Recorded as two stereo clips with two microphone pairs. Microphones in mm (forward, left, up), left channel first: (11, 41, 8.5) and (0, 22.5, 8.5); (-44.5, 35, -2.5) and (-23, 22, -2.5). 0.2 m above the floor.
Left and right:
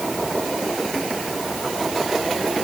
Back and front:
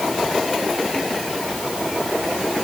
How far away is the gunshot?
No gunshot in this recording.